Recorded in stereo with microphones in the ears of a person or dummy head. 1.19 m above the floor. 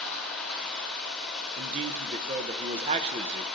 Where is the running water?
5° left (ahead or behind), 1.4 m.